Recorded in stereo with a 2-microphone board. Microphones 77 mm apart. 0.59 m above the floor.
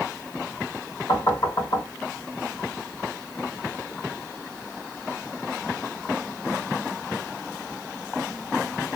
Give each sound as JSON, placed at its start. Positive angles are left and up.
{"t": 1.1, "sound": "knocking", "side_deg": 65, "distance_m": 2.0}